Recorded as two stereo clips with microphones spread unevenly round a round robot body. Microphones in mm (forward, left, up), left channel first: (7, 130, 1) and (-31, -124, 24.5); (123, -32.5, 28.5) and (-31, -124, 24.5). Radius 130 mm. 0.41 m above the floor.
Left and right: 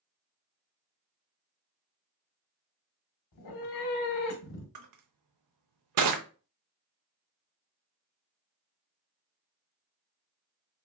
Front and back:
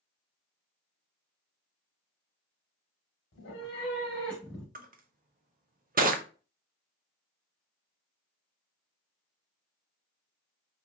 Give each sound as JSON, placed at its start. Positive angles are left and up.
{"t": 3.3, "sound": "a cat meowing", "azimuth_deg": 60, "distance_m": 0.8}
{"t": 4.8, "sound": "crushing", "azimuth_deg": -110, "distance_m": 0.7}